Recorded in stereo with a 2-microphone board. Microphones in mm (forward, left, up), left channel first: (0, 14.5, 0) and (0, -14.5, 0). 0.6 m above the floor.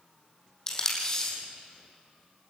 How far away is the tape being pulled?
About 5 m.